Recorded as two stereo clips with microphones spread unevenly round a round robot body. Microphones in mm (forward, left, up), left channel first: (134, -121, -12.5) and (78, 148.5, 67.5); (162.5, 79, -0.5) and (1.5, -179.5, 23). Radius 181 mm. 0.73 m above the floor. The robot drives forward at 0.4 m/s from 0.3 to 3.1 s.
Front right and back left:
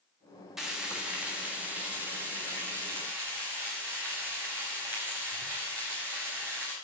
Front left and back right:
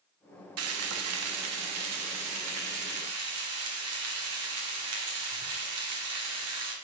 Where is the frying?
155° right, 1.1 m; by 6.7 s 170° right, 1.9 m.